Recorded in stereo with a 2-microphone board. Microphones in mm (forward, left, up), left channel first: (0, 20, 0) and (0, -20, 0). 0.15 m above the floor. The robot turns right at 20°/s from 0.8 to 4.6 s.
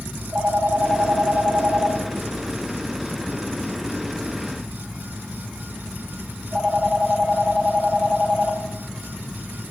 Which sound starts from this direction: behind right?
A phone ringing, at 0.1 s.